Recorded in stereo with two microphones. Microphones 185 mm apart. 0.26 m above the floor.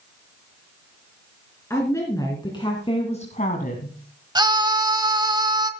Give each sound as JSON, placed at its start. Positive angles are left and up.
{"t": 1.7, "sound": "a woman speaking", "side_deg": 15, "distance_m": 3.5}
{"t": 4.3, "sound": "a scream", "side_deg": -20, "distance_m": 1.4}